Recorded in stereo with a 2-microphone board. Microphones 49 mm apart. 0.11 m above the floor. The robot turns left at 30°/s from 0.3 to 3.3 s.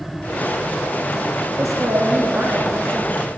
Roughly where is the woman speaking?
Right.